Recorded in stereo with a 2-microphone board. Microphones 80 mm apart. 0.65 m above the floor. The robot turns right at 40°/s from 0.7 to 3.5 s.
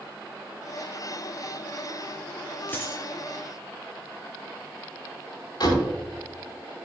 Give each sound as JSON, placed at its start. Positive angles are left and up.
{"t": 2.7, "sound": "a dropped coin", "side_deg": 20, "distance_m": 2.0}
{"t": 5.6, "sound": "a door slam", "side_deg": 60, "distance_m": 4.0}